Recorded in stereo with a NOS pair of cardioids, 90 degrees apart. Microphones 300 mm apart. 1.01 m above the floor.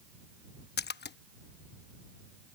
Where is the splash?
35° left.